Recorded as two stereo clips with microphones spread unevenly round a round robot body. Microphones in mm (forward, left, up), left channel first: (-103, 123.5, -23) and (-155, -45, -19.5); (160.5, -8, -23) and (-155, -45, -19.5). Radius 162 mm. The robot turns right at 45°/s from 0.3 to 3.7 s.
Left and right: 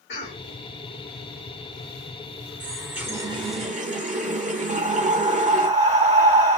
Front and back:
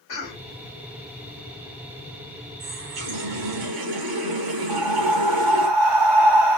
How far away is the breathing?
About 3 m.